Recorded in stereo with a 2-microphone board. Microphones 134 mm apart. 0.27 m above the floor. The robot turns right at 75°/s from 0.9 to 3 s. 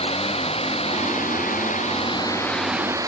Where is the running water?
50° left; by 3.1 s 155° right.